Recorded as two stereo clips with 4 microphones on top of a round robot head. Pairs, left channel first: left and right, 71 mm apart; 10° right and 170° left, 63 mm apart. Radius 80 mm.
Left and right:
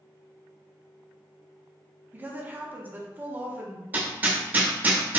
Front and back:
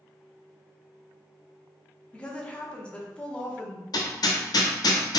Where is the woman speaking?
65° right, 0.8 m.